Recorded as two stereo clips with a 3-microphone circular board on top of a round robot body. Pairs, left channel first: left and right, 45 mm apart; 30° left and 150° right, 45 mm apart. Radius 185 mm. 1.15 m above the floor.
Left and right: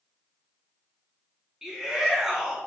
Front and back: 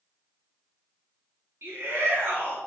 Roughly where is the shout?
Behind.